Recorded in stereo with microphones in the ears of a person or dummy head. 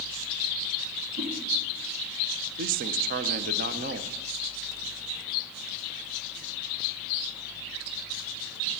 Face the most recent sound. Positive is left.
turn(degrees=-40)  # may be behind; listen again after turning